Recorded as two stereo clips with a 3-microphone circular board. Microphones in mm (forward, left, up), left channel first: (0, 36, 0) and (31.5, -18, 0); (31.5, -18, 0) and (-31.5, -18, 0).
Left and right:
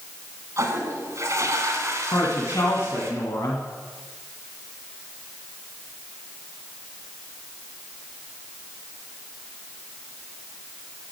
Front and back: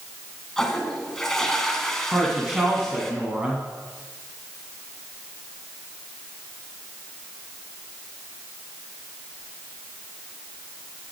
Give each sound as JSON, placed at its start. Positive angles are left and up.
{"t": 0.6, "sound": "a toilet flushing", "azimuth_deg": -80, "distance_m": 1.8}
{"t": 2.1, "sound": "a woman speaking", "azimuth_deg": 110, "distance_m": 2.0}